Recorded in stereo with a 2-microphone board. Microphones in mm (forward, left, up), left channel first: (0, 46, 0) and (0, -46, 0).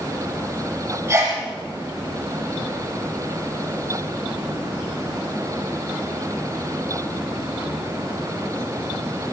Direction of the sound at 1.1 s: 30° right (ahead or behind).